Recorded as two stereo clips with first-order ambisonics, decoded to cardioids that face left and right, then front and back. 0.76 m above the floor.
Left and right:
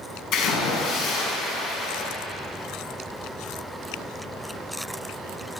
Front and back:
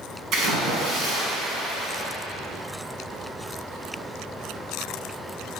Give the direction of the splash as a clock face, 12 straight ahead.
8 o'clock.